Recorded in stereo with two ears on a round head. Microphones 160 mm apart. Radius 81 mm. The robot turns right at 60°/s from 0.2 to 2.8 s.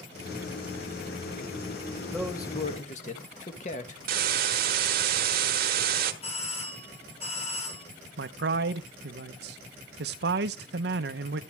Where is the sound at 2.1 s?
5° left, 1.5 m; by 4.0 s 45° left, 1.5 m.